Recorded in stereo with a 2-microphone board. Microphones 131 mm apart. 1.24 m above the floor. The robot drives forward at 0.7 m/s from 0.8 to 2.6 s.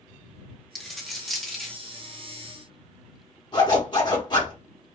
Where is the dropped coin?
Centre (ahead or behind), 0.7 m.